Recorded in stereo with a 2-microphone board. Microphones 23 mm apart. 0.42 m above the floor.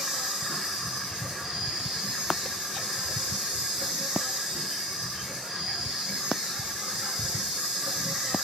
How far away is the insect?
About 1.1 m.